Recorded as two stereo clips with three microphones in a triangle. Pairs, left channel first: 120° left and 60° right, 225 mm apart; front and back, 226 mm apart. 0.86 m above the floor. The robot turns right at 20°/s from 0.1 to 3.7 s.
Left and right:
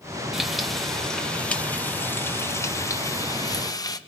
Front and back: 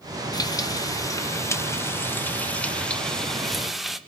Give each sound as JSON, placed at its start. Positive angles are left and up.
{"t": 0.3, "sound": "frying", "azimuth_deg": 25, "distance_m": 0.9}